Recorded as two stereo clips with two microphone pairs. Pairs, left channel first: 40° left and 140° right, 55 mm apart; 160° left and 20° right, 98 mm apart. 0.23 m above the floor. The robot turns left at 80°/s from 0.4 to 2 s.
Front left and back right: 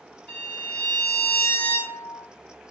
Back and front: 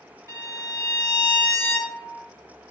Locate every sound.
0.3 s a violin: 5° right, 1.8 m; by 2.3 s 130° right, 1.8 m